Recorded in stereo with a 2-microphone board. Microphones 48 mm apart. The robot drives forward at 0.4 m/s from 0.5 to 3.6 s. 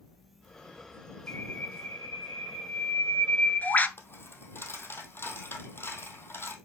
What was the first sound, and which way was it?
A bird, 40° left (ahead or behind).